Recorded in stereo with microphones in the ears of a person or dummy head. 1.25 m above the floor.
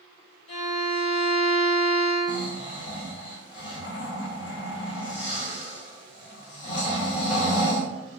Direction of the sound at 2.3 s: 35° left (ahead or behind).